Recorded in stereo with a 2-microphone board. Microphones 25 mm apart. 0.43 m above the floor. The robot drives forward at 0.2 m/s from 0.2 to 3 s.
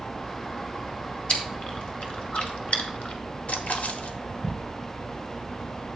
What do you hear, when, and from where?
1.3 s chewing: 45° left (ahead or behind), 1.5 m; by 3.2 s 55° left (ahead or behind), 1.3 m
3.5 s a splash: 60° left (ahead or behind), 0.8 m